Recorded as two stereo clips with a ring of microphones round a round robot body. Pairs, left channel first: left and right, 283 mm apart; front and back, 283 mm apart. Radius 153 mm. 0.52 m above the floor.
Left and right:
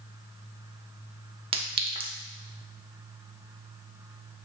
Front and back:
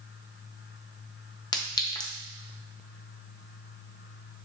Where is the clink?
55° right, 0.6 m.